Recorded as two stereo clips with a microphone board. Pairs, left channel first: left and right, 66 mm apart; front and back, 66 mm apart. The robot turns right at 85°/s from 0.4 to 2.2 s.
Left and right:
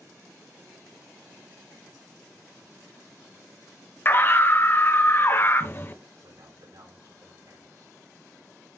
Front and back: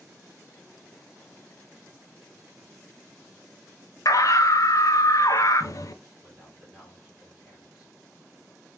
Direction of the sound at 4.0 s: 35° left.